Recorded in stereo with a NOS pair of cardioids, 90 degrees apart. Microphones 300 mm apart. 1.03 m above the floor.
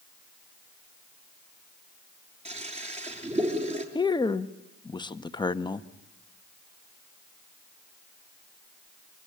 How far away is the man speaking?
About 1.3 m.